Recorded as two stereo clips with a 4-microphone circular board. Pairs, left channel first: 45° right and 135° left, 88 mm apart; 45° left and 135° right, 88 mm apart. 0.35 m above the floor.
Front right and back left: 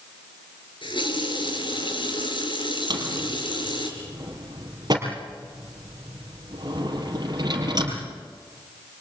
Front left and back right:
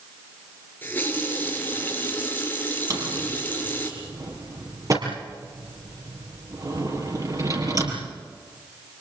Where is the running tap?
25° right, 4 m.